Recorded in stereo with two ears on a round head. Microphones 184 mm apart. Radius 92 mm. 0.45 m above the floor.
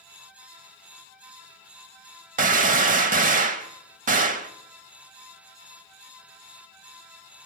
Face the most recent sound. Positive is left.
turn(degrees=-40)  # may be behind; listen again after turning